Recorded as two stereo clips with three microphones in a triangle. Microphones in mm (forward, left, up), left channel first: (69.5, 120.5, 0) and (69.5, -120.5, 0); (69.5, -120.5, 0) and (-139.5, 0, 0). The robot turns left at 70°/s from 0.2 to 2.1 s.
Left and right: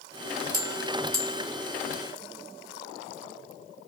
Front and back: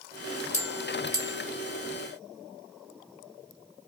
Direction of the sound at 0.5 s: 95° right.